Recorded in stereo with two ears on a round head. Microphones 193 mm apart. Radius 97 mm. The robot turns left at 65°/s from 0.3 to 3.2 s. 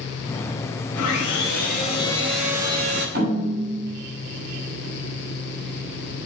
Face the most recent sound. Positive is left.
turn(degrees=-50)  # may be behind; listen again after turning